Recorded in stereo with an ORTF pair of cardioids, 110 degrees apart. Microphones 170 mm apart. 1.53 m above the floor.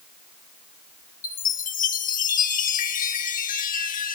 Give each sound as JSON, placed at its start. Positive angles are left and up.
{"t": 1.2, "sound": "a chime", "azimuth_deg": 50, "distance_m": 1.9}